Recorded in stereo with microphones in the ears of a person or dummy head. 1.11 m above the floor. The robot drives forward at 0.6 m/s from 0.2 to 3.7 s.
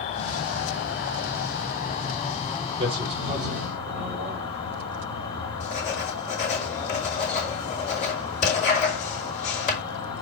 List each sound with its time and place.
0.0 s an insect: 40° left (ahead or behind), 1.3 m; by 10.2 s 25° left (ahead or behind), 2 m
2.8 s a man speaking: 25° right (ahead or behind), 2.5 m; by 4.6 s 20° right (ahead or behind), 3 m
5.6 s writing: 40° left (ahead or behind), 5.5 m